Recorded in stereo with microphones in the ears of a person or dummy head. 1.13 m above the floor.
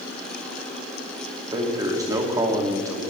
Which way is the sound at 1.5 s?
15° right (ahead or behind).